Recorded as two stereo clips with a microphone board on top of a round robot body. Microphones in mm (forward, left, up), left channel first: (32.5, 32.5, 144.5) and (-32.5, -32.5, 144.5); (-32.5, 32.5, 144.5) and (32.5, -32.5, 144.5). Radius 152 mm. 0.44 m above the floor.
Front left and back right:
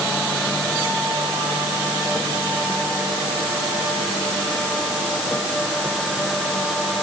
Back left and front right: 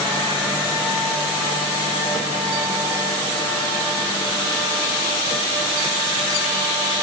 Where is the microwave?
No microwave in this recording.